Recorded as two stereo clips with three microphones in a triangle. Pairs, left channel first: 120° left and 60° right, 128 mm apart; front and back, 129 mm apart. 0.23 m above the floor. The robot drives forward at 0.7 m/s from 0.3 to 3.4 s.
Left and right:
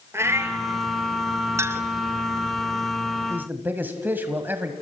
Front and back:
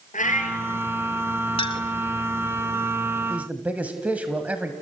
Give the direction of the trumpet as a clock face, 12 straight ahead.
I don't hear a trumpet.